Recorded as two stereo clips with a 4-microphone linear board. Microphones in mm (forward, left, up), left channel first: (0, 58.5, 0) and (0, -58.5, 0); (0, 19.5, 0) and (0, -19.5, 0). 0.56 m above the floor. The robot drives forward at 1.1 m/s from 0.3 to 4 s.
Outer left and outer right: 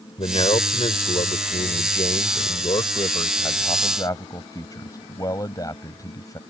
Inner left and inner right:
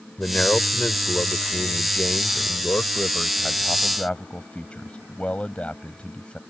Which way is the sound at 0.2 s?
50° left (ahead or behind).